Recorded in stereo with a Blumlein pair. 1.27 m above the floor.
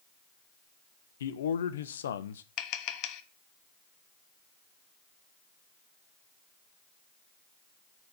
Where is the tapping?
40° left, 0.8 m.